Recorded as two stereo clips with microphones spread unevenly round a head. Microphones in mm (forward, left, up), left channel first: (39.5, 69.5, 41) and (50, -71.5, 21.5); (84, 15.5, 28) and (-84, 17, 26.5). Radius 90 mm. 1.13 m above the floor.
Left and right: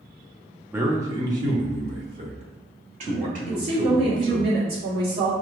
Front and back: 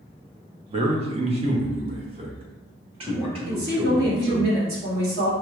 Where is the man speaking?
150° right, 0.7 m; by 4.5 s 120° right, 2.5 m.